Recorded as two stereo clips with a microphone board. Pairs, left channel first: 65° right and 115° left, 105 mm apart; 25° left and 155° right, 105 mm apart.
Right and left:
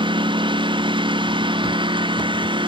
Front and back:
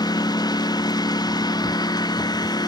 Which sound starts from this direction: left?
A lawn mower, at 0.0 s.